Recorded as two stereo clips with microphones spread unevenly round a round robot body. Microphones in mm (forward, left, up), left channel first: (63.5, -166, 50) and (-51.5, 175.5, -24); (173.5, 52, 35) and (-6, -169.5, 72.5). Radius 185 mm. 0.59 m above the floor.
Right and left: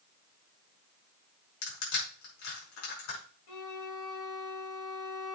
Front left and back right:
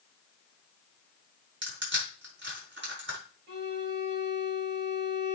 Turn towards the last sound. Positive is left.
turn(degrees=-70)